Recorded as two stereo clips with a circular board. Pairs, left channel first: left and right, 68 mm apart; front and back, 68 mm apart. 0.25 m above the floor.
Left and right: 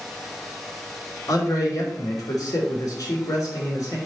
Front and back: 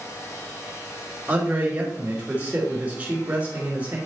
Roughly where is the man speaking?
Behind left.